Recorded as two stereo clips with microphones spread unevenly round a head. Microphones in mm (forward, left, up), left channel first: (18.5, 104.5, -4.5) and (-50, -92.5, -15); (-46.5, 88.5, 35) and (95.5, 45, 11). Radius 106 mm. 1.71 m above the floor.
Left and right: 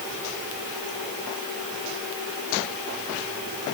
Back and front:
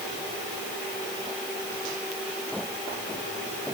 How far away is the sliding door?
I don't hear a sliding door.